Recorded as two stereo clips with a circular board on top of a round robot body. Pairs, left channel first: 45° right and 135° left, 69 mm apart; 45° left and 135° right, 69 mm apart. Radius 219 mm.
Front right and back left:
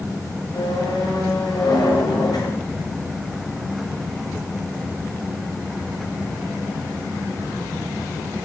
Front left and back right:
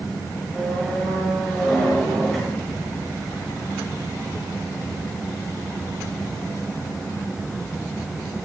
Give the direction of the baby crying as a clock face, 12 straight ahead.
I don't hear a baby crying.